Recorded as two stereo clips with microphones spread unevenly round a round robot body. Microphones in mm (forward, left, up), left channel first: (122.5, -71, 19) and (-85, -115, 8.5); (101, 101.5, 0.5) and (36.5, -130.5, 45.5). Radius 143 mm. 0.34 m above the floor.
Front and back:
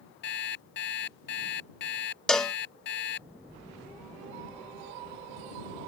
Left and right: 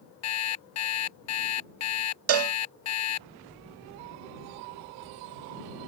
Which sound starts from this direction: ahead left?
An alarm clock, at 0.2 s.